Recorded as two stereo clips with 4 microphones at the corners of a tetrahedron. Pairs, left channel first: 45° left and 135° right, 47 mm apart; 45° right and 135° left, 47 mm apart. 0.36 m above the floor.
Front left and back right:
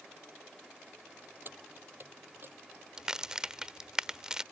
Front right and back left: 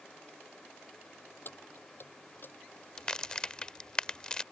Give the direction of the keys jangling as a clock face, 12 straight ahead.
3 o'clock.